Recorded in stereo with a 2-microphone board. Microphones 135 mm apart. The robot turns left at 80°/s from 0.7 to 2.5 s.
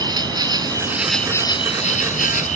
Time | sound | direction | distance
0.0 | an insect | 150° right | ?